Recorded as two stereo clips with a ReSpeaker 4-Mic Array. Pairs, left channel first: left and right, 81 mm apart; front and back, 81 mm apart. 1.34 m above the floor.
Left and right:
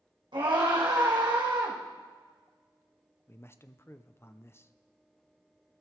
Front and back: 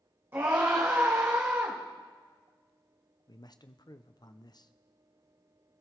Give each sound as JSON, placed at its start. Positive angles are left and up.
{"t": 0.3, "sound": "a scream", "azimuth_deg": -115, "distance_m": 1.8}
{"t": 3.3, "sound": "a man speaking", "azimuth_deg": 30, "distance_m": 0.6}